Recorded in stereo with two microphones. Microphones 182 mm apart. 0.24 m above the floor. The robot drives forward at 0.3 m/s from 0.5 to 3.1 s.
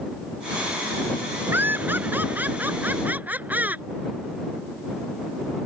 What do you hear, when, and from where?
1.5 s laughter: 10° right (ahead or behind)